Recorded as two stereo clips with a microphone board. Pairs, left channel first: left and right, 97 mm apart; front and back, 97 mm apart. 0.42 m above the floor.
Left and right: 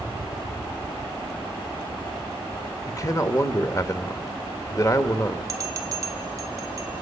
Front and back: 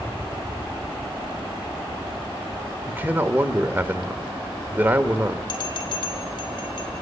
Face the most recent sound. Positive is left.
turn(degrees=-35)